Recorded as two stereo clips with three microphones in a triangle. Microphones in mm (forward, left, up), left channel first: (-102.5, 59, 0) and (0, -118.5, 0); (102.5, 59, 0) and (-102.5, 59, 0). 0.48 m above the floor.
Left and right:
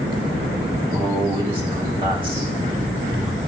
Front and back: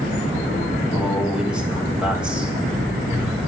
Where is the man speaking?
100° right, 1.5 m.